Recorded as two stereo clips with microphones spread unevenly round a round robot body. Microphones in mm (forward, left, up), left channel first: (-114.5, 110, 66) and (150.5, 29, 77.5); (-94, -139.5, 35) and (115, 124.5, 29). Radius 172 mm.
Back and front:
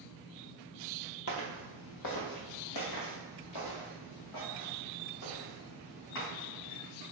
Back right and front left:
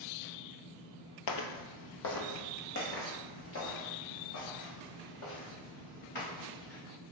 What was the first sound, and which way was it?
Footsteps, 145° right.